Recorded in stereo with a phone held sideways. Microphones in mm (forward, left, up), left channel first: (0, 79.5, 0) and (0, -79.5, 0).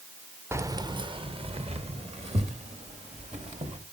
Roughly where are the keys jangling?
Centre.